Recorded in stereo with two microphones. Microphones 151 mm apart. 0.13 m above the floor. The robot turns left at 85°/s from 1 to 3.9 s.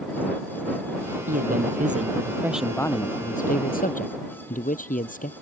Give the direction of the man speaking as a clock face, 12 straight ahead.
2 o'clock.